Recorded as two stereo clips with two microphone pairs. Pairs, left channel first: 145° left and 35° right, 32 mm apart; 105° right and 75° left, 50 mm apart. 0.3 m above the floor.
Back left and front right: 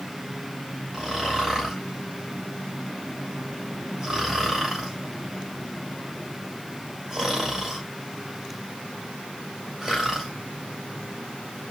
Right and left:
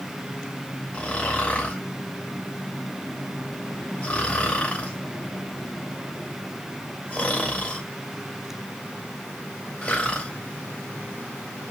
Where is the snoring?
85° right, 1.7 m.